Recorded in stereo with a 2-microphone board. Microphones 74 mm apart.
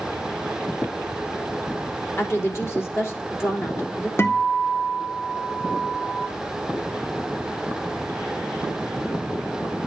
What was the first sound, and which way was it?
A woman speaking, 35° left (ahead or behind).